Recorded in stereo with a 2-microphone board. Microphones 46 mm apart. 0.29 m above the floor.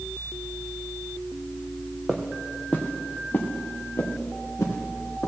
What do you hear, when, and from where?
2.1 s footsteps: centre (ahead or behind), 1.5 m; by 5.3 s 65° left (ahead or behind), 4 m